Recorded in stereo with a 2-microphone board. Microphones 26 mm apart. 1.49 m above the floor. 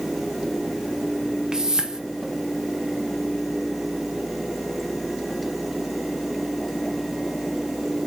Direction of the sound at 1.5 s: 30° right (ahead or behind).